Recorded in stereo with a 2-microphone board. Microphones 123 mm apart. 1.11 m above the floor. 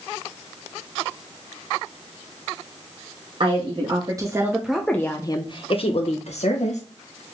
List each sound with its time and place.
3.4 s a woman speaking: 50° right (ahead or behind), 1.1 m; by 6.8 s 70° left (ahead or behind), 1.3 m